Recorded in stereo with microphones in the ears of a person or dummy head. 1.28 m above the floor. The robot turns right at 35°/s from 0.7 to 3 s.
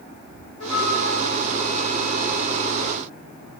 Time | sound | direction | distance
0.6 | a flute | 100° left | 1.6 m